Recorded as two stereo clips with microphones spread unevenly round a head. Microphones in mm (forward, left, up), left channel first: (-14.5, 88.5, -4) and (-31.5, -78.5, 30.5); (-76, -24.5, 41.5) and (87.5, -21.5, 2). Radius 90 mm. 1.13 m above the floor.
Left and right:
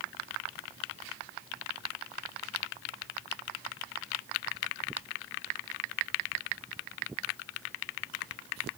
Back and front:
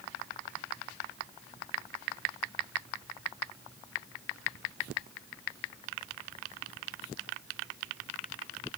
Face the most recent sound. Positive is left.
No sound to turn to.